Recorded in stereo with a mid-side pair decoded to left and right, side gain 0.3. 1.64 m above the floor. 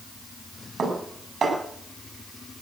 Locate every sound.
0.8 s dishes clattering: 65° right, 5.5 m